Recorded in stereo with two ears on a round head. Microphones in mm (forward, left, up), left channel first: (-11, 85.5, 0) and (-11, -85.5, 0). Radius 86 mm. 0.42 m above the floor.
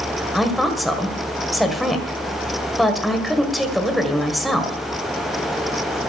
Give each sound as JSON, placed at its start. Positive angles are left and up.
{"t": 0.3, "sound": "a woman speaking", "side_deg": 0, "distance_m": 1.9}